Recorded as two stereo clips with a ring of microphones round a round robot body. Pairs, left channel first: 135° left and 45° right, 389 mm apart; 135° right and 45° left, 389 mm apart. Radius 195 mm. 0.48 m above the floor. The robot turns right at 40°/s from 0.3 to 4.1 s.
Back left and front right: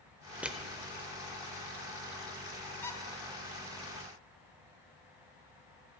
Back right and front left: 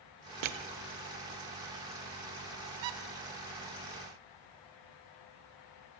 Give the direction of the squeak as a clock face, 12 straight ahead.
10 o'clock.